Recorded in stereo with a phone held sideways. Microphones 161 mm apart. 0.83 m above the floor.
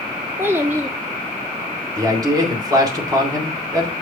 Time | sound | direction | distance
0.4 | a child speaking | 15° right (ahead or behind) | 0.7 m
1.9 | a man speaking | 25° right (ahead or behind) | 2.5 m